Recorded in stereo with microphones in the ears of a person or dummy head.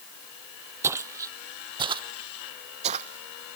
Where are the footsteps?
10° right (ahead or behind); by 3.6 s 40° right (ahead or behind).